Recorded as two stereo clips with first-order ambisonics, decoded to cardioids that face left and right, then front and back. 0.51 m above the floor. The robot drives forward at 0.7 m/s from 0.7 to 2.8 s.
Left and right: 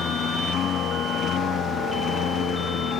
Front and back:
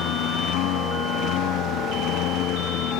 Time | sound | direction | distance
0.0 | a lawn mower | 35° left | ?